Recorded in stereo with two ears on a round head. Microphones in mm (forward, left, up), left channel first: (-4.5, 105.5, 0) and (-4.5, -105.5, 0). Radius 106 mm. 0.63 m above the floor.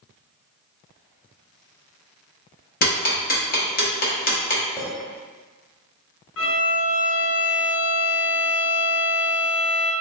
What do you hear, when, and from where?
2.8 s ticking: 40° left (ahead or behind), 1.0 m
4.8 s a clink: 10° left (ahead or behind), 0.9 m
6.4 s a violin: 60° left (ahead or behind), 0.6 m